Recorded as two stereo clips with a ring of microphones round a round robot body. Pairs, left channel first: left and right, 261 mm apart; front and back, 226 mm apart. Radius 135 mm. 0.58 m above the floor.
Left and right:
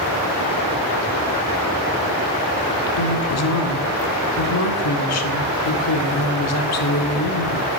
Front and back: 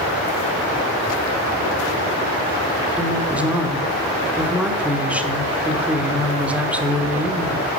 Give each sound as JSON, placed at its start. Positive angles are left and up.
{"t": 3.0, "sound": "a woman speaking", "azimuth_deg": 95, "distance_m": 1.7}